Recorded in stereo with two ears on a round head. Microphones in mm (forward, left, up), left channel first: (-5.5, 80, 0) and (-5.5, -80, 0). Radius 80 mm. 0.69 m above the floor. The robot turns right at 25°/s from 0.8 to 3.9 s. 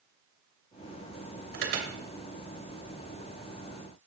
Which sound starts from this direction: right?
An alarm, at 1.5 s.